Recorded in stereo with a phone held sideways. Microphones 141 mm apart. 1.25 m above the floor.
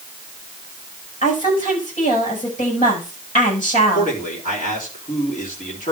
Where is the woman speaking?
65° left (ahead or behind), 7.5 m.